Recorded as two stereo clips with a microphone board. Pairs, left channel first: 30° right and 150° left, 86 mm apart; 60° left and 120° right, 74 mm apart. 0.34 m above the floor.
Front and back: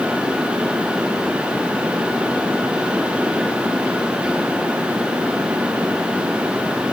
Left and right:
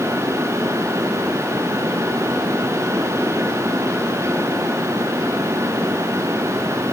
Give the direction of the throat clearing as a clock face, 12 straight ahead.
No throat clearing in this recording.